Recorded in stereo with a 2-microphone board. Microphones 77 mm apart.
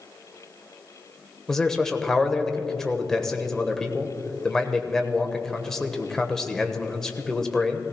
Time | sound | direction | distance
1.5 | a man speaking | 5° left (ahead or behind) | 1.1 m